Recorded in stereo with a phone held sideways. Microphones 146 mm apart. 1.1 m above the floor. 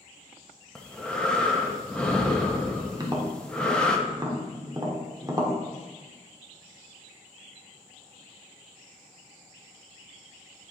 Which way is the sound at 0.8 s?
5° left (ahead or behind).